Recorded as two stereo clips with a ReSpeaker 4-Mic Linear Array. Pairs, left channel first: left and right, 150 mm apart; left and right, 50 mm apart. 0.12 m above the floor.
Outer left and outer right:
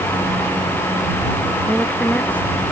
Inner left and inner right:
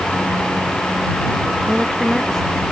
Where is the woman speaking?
10° left (ahead or behind).